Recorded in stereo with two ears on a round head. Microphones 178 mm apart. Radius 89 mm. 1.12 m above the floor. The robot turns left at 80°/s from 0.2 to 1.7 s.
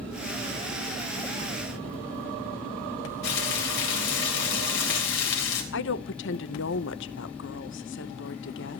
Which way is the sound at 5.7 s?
60° left (ahead or behind).